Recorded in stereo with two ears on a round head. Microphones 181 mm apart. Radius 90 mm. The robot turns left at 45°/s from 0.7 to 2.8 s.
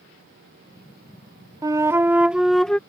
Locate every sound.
1.6 s a flute: 20° right (ahead or behind); by 2.8 s 5° left (ahead or behind)